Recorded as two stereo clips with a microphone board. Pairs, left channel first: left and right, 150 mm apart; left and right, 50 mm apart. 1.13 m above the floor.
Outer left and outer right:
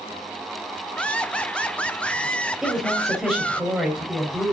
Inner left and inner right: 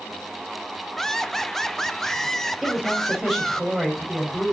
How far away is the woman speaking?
About 5 m.